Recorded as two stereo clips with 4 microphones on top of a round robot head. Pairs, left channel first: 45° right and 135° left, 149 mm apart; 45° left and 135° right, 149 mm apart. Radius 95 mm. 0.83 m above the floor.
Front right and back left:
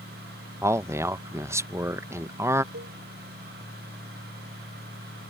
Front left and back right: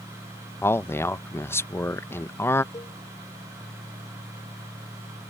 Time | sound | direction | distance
0.6 | a man speaking | 95° left | ?
2.7 | a cowbell | 115° left | ?